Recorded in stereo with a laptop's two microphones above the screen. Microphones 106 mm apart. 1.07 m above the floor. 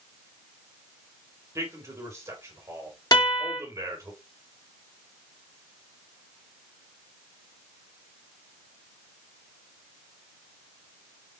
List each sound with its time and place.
1.6 s a man speaking: 25° right (ahead or behind), 2 m
3.1 s a guitar: 35° left (ahead or behind), 2 m